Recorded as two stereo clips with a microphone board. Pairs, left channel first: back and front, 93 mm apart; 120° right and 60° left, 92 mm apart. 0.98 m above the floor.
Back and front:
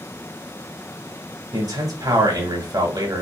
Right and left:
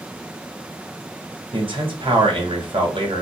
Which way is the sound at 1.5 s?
45° left.